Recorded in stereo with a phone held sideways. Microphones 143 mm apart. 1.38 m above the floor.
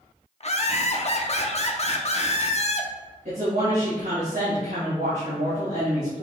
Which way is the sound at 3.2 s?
70° right (ahead or behind).